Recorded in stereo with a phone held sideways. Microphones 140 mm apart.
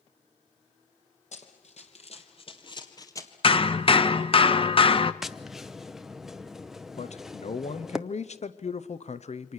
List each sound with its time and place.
1.3 s running footsteps: 55° left (ahead or behind), 2.5 m; by 3.3 s 20° left (ahead or behind), 1.9 m
3.4 s hammering: 40° left (ahead or behind), 0.7 m
5.2 s tapping: 5° right (ahead or behind), 0.7 m
7.0 s a man speaking: 55° left (ahead or behind), 0.7 m